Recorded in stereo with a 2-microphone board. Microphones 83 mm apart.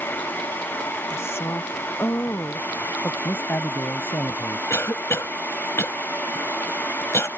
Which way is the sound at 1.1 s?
30° left (ahead or behind).